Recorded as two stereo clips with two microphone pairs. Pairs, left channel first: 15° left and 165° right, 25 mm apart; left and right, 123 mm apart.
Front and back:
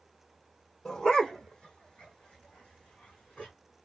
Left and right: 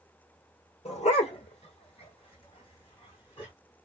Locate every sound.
0.8 s a dog barking: 60° left, 1.4 m; by 3.5 s 45° left, 3.5 m